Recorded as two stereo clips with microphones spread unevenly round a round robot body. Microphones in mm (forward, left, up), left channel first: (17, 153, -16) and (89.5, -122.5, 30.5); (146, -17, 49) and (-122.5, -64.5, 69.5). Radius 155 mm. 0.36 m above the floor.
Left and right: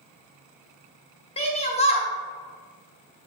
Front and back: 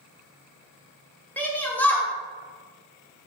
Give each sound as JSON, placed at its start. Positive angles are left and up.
{"t": 1.4, "sound": "a shout", "azimuth_deg": 80, "distance_m": 1.4}